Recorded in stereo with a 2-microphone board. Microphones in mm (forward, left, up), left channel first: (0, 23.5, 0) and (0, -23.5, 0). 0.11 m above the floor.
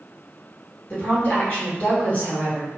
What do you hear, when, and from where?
0.9 s a woman speaking: 30° left (ahead or behind), 1.6 m